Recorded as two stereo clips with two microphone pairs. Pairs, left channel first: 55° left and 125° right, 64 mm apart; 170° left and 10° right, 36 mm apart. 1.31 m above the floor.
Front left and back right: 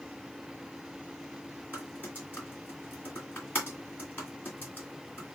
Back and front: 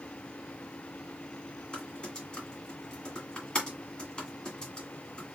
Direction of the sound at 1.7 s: 110° left.